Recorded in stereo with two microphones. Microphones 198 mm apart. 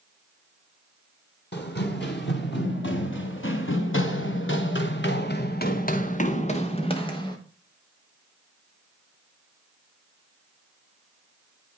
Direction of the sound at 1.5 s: 60° left (ahead or behind).